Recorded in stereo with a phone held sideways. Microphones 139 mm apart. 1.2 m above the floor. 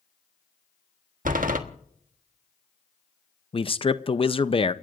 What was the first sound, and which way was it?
A door slam, 75° right (ahead or behind).